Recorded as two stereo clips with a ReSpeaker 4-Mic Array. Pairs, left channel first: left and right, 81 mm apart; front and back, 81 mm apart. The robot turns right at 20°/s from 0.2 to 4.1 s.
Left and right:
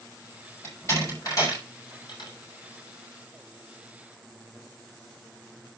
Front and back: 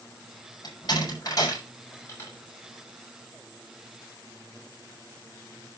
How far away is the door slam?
About 6 m.